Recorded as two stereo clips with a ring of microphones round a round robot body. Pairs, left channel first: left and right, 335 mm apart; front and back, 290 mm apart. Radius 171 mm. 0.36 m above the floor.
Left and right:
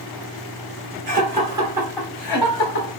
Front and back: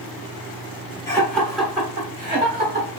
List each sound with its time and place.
1.1 s laughter: 70° right, 1.2 m; by 2.9 s 140° left, 1.4 m